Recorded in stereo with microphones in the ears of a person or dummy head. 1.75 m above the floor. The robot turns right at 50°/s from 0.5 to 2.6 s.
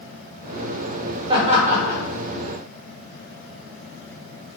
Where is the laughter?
25° right (ahead or behind), 0.8 m; by 2.0 s 60° right (ahead or behind), 0.8 m.